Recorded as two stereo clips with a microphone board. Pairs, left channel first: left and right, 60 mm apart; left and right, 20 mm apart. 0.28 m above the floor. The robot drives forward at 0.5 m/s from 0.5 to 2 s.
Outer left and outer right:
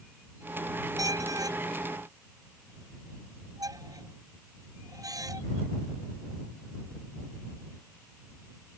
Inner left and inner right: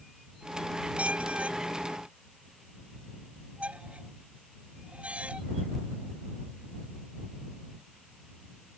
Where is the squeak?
85° right; by 5.4 s 80° right.